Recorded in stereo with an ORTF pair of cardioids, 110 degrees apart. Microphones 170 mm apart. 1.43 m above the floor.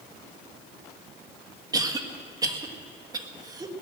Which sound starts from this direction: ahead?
A cough, at 1.7 s.